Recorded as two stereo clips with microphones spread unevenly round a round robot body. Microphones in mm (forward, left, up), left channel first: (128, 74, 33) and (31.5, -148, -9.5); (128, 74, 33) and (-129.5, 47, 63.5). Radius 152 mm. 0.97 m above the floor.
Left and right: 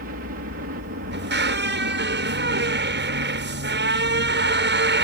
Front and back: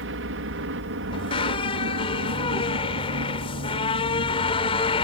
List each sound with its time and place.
0.0 s a helicopter: 145° right
1.1 s a squeak: 70° right